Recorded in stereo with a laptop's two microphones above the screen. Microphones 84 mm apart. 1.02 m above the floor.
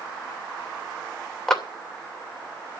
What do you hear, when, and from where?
1.5 s a clap: 10° left (ahead or behind), 2.5 m